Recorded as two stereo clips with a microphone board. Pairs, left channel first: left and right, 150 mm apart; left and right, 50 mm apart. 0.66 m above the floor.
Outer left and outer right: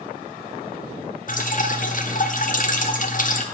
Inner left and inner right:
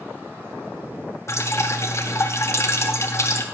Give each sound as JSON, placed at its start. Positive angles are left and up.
{"t": 1.3, "sound": "dripping", "side_deg": 60, "distance_m": 1.1}